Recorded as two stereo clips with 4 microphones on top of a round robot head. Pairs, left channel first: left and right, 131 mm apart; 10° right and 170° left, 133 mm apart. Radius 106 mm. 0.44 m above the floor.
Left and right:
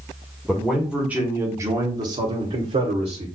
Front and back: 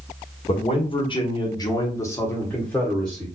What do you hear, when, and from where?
0.5 s a man speaking: 5° left, 1.3 m; by 3.3 s 95° right, 1.4 m